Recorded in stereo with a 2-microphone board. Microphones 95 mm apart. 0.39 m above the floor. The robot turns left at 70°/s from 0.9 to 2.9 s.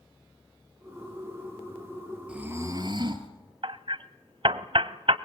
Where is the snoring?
15° right, 2 m; by 3.3 s 55° right, 2 m.